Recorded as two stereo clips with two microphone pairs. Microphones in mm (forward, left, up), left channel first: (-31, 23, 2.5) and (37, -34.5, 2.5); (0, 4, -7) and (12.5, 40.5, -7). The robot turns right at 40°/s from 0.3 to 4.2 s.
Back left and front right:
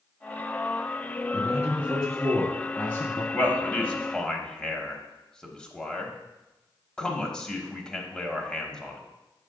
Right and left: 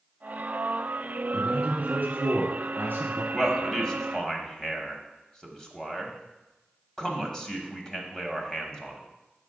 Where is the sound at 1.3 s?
15° left, 2.5 m; by 3.2 s 90° left, 2.5 m.